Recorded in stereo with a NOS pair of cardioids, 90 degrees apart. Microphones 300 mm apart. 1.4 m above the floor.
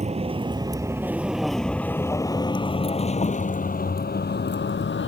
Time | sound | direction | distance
0.0 | a vehicle | 20° right | ?